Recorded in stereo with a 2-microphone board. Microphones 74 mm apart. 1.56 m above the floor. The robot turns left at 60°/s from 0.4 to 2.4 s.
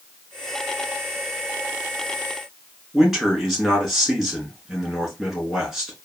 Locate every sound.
2.9 s a man speaking: centre (ahead or behind), 2 m